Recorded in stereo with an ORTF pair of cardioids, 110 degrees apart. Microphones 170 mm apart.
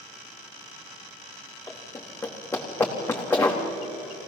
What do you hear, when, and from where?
1.7 s running footsteps: 15° left, 4.5 m